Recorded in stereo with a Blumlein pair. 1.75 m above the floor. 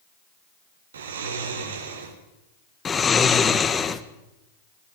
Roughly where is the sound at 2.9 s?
Ahead.